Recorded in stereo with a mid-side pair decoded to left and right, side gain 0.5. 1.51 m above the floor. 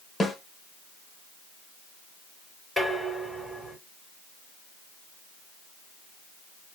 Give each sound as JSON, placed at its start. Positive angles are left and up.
{"t": 0.2, "sound": "a snare drum", "azimuth_deg": 15, "distance_m": 1.3}
{"t": 2.8, "sound": "dishes clattering", "azimuth_deg": -10, "distance_m": 2.5}